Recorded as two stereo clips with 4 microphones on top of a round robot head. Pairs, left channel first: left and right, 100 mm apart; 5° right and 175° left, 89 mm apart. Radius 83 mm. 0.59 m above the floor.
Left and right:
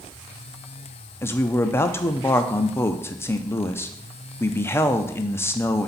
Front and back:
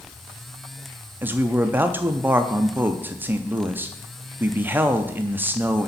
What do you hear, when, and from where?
1.2 s a man speaking: 130° left, 0.6 m